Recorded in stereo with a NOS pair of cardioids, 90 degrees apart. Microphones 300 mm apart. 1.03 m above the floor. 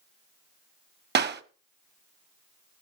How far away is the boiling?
No boiling in this recording.